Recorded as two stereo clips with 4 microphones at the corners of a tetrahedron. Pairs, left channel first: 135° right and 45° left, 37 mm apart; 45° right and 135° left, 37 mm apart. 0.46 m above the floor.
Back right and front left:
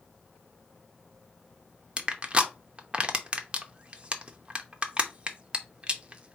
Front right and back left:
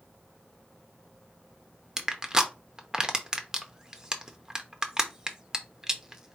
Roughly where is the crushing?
Left.